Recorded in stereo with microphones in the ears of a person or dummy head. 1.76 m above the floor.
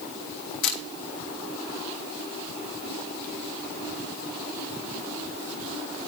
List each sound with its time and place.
0.6 s a camera shutter: 65° left (ahead or behind), 1.6 m